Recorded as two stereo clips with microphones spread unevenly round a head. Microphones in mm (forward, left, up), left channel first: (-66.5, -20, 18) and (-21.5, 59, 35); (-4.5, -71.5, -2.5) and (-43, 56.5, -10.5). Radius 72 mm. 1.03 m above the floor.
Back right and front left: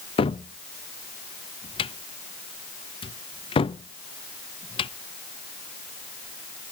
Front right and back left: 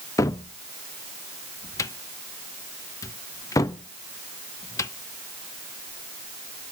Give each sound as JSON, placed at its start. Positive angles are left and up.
{"t": 0.2, "sound": "a cupboard door", "azimuth_deg": -140, "distance_m": 0.7}